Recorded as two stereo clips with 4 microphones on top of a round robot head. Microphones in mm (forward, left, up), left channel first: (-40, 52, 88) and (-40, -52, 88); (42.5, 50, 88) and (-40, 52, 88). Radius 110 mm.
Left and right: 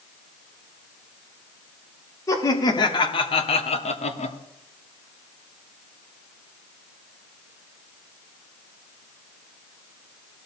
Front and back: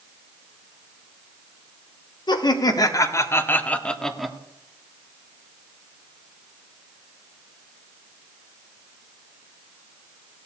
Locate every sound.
2.3 s laughter: 30° left, 1.7 m; by 4.4 s 95° left, 1.4 m